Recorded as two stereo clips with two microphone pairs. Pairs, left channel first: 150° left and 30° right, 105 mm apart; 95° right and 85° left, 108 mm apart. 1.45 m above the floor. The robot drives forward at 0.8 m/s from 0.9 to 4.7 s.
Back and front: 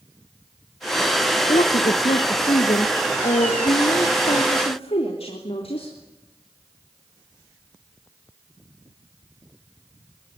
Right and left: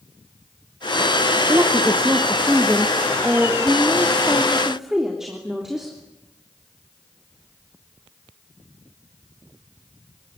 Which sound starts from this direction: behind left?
A woman speaking, at 1.5 s.